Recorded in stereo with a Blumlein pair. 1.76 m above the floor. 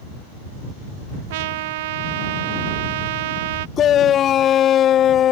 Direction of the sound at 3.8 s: 30° left.